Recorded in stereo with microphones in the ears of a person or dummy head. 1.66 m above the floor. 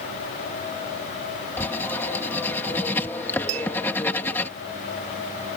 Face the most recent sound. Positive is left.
turn(degrees=-35)  # may be behind; listen again after turning